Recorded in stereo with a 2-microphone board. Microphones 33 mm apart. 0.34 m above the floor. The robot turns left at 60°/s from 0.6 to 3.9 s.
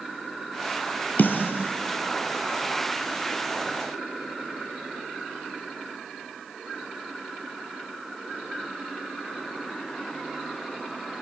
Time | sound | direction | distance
1.2 | a snare drum | 60° left (ahead or behind) | 1.6 m